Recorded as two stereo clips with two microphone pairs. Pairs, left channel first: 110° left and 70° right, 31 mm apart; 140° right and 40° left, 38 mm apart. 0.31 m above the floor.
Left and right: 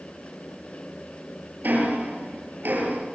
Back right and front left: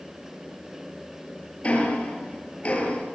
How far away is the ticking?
About 8 m.